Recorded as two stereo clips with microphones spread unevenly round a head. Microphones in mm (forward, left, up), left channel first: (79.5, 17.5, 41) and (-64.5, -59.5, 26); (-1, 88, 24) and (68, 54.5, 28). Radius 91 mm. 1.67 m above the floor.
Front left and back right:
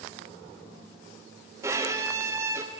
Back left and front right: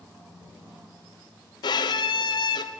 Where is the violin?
130° left, 0.6 m.